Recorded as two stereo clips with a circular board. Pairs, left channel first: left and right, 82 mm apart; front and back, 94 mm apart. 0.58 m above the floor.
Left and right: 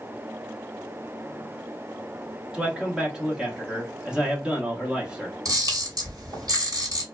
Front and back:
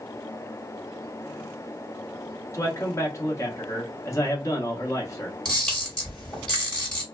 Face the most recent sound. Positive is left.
turn(degrees=-80)